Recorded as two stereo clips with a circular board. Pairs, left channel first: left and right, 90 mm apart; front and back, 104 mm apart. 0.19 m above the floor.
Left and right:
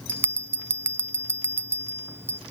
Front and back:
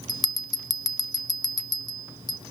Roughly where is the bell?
Ahead right.